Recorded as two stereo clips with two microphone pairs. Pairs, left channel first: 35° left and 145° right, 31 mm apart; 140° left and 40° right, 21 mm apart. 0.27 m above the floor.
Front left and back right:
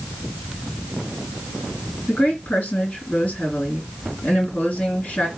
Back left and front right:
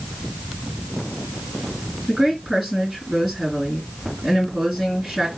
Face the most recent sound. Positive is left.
turn(degrees=40)